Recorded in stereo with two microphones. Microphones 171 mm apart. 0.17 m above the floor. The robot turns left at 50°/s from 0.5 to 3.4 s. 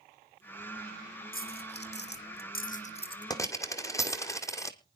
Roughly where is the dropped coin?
Left.